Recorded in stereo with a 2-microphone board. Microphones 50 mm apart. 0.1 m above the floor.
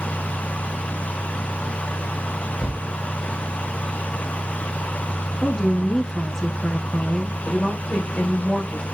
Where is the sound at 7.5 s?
20° left (ahead or behind), 6.5 m.